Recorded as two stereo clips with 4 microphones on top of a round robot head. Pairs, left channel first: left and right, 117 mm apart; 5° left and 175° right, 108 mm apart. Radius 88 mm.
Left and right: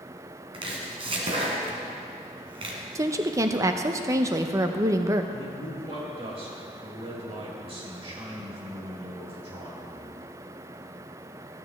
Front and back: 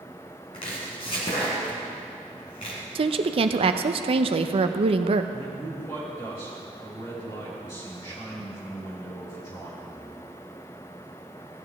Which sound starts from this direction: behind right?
A woman speaking, at 3.0 s.